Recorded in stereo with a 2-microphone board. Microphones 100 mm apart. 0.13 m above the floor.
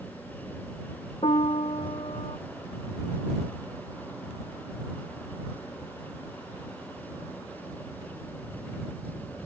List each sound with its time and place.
1.2 s a piano: 75° left (ahead or behind)